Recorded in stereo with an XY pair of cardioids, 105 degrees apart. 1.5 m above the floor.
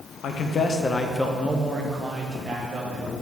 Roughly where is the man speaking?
Ahead left.